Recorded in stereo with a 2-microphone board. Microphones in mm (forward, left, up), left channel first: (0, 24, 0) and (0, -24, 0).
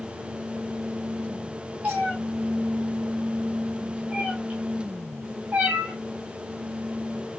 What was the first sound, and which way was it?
A cat meowing, 35° right (ahead or behind).